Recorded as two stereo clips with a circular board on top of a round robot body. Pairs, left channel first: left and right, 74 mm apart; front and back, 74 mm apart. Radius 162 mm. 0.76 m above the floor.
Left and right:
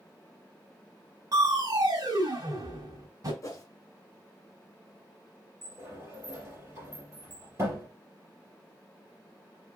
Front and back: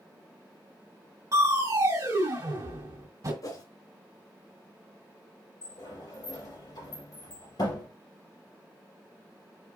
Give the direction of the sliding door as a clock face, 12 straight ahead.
1 o'clock.